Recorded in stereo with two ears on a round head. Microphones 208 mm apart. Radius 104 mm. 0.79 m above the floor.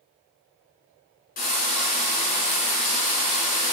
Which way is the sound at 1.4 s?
40° left (ahead or behind).